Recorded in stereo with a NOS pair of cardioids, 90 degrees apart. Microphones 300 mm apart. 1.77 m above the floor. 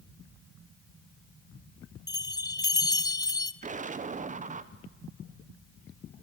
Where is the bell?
15° left, 0.6 m.